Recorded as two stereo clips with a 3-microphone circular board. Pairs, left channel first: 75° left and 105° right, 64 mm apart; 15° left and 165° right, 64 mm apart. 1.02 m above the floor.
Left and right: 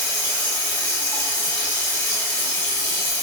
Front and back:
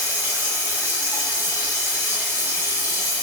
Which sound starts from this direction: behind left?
Running water, at 0.0 s.